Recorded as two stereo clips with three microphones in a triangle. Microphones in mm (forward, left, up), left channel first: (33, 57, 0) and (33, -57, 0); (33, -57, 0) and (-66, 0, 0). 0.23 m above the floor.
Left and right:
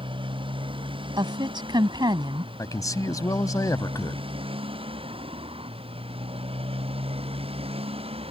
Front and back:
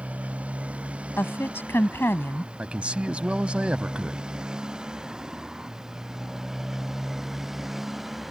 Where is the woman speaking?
90° right.